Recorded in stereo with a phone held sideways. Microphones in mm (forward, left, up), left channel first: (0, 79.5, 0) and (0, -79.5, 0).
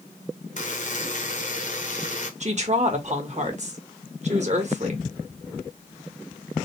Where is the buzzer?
55° left (ahead or behind), 1.0 m.